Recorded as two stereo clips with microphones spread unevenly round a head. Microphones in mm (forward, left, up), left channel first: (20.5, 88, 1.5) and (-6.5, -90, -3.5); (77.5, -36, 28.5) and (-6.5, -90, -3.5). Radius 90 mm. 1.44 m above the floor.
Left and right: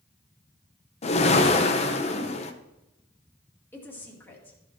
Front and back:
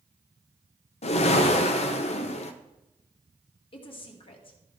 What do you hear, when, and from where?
1.0 s a whoosh: 25° left, 0.9 m
3.7 s a woman speaking: straight ahead, 2 m